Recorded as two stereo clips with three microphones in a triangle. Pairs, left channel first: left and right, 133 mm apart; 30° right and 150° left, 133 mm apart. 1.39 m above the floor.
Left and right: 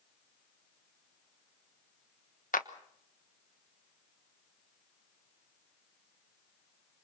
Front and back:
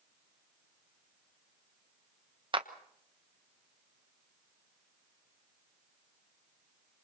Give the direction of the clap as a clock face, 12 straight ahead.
9 o'clock.